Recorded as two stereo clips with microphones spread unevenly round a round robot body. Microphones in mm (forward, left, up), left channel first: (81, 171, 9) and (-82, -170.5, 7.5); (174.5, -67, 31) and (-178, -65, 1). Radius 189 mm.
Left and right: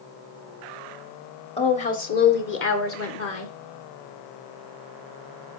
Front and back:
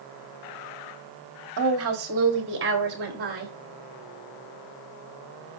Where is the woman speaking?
140° left, 1.8 m; by 3.5 s 115° left, 2.5 m.